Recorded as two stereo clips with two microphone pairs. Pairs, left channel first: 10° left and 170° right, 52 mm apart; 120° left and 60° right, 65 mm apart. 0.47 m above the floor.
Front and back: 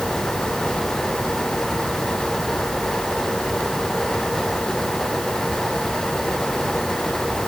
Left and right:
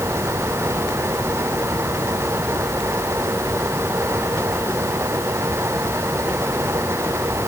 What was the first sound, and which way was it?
Only background noise.